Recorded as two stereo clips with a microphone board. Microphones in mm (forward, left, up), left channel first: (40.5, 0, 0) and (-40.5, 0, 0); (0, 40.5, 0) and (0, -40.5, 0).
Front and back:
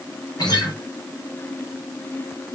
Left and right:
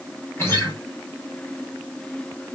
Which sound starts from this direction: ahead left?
A guitar, at 0.4 s.